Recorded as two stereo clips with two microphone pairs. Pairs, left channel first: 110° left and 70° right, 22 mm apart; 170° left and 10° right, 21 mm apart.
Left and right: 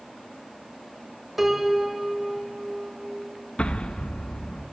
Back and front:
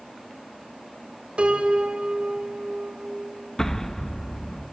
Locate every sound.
1.4 s a piano: 5° left, 1.7 m
3.6 s an explosion: 100° left, 0.8 m